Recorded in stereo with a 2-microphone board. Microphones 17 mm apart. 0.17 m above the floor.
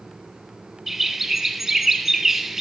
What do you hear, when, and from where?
0.9 s a bird: 15° right (ahead or behind), 1.1 m